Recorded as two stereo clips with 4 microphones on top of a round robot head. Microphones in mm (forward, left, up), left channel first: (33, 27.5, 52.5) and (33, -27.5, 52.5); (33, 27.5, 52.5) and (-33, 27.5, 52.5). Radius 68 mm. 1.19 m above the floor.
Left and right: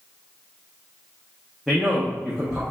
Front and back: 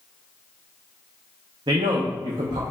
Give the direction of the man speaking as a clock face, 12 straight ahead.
6 o'clock.